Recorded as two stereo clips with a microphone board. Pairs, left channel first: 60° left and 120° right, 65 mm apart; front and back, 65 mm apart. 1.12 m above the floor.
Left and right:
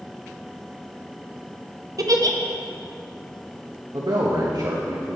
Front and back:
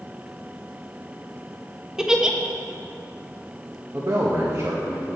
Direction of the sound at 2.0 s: 100° right.